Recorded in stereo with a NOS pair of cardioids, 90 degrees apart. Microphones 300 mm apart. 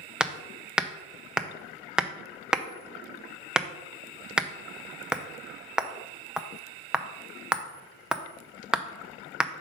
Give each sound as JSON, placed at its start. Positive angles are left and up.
{"t": 0.2, "sound": "hammering", "azimuth_deg": -5, "distance_m": 0.6}